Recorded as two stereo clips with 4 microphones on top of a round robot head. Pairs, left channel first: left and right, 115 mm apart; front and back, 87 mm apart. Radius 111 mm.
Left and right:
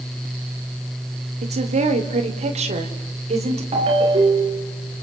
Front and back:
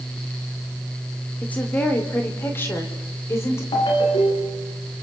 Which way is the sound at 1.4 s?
75° right.